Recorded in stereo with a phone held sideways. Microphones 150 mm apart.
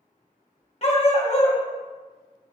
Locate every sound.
0.8 s a dog barking: 45° left (ahead or behind), 1.5 m